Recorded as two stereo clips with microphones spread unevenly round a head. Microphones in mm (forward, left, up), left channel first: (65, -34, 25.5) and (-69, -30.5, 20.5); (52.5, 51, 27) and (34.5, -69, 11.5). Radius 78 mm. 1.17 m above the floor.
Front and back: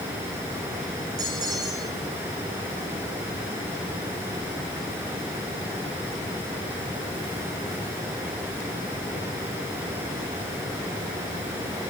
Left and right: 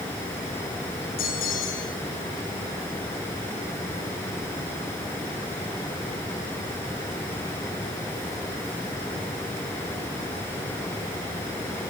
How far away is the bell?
About 7 m.